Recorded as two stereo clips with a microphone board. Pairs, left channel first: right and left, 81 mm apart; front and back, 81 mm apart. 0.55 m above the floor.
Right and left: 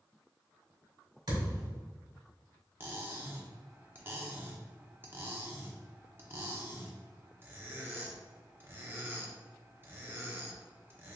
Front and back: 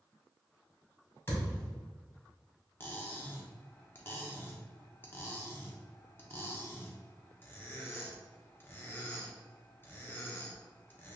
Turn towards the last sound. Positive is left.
turn(degrees=45)